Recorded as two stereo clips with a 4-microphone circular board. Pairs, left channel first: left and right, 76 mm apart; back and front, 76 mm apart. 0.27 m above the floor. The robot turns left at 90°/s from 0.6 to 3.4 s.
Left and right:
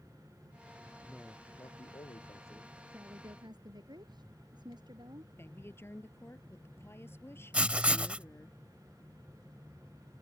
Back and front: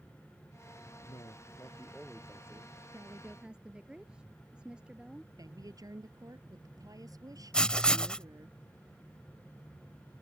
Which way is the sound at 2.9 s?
35° right.